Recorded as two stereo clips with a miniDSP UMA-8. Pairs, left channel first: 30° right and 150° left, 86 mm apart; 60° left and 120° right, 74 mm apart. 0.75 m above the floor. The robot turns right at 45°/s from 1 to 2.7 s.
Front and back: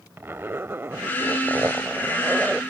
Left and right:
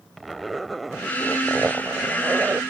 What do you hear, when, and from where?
0.2 s a zipper: 150° left; by 2.6 s 135° right